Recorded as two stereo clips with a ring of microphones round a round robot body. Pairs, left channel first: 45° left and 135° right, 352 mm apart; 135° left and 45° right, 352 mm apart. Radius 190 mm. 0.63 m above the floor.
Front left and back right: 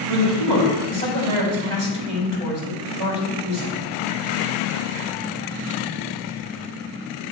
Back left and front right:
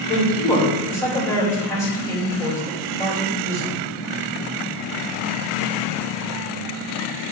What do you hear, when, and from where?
0.1 s a man speaking: 145° right, 3 m